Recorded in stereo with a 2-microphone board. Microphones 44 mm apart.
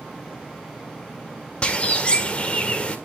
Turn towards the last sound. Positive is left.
turn(degrees=25)  # may be behind; listen again after turning